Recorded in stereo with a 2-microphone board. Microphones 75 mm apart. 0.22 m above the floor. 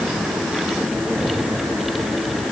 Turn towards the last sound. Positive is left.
No sound to turn to.